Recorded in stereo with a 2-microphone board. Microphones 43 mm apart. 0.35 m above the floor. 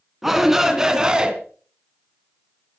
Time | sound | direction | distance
0.2 | a shout | 5° right (ahead or behind) | 3 m